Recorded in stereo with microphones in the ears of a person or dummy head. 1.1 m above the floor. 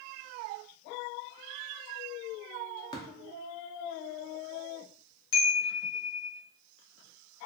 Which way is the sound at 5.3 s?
65° left (ahead or behind).